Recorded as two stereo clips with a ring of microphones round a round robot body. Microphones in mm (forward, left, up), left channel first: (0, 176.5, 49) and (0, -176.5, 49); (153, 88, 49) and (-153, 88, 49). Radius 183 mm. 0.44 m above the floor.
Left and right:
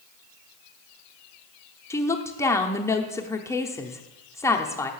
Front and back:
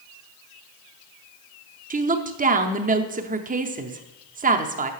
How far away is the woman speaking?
About 0.8 m.